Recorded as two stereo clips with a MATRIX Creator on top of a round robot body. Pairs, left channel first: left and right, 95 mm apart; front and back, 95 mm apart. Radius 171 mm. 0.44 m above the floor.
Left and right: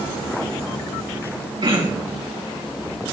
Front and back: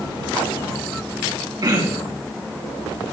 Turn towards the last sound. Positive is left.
turn(degrees=-130)